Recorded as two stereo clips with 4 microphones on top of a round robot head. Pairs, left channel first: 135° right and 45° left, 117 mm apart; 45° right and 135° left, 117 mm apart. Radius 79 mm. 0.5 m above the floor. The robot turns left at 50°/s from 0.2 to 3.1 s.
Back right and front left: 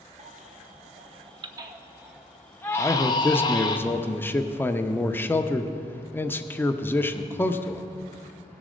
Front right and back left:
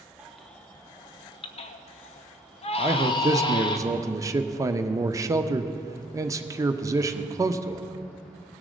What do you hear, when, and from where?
0.2 s a baby crying: 55° left, 0.8 m; by 3.8 s 90° right, 0.8 m
2.8 s a man speaking: 175° right, 0.7 m; by 7.8 s 170° left, 0.7 m